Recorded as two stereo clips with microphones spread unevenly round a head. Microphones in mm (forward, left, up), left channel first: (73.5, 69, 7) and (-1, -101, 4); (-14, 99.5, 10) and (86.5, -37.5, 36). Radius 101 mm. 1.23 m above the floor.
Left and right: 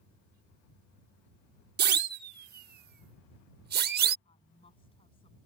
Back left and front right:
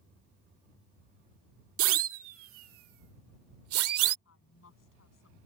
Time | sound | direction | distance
1.8 | a siren | 80° right | ?
4.2 | a woman speaking | 135° left | ?